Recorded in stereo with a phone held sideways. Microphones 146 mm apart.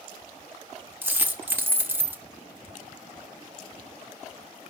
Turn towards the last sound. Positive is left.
turn(degrees=-15)  # may be behind; listen again after turning